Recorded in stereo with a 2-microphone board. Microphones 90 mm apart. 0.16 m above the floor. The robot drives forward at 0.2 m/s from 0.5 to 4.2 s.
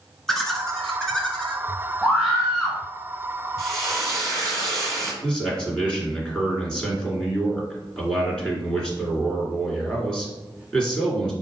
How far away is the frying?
About 1.7 m.